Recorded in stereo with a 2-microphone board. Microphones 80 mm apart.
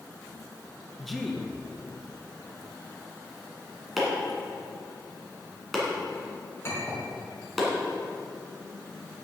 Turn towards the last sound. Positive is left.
turn(degrees=35)  # may be behind; listen again after turning